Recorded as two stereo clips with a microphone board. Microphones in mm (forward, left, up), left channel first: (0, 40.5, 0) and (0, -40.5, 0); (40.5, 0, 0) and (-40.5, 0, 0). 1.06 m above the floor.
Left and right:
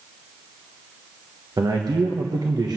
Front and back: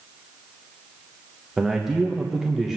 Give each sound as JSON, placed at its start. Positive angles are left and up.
{"t": 1.6, "sound": "a man speaking", "azimuth_deg": -95, "distance_m": 1.1}